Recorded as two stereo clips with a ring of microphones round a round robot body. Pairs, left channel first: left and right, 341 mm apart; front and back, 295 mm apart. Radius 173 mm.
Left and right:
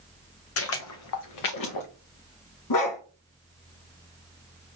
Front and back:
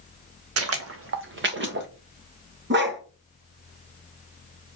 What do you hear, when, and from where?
0.6 s footsteps: 140° left, 1.1 m; by 1.9 s 125° left, 1.9 m
2.7 s a dog barking: 125° left, 2 m